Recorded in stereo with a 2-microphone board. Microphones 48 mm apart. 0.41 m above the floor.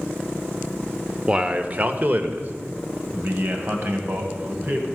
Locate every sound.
1.3 s a man speaking: 20° right (ahead or behind), 0.8 m; by 4.9 s 50° right (ahead or behind), 2.5 m